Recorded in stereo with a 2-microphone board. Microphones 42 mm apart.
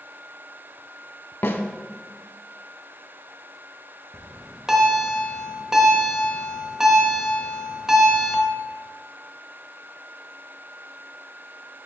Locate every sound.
1.4 s a snare drum: 75° left (ahead or behind), 0.7 m
4.1 s a bell: 15° right (ahead or behind), 1.1 m